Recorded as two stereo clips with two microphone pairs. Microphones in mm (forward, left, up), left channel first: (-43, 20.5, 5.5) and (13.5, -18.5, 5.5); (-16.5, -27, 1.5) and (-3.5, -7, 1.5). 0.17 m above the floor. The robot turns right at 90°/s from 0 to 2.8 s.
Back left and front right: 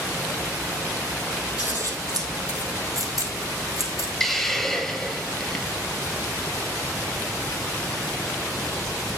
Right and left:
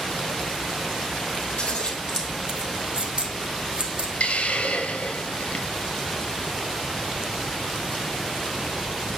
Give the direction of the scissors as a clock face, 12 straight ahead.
4 o'clock.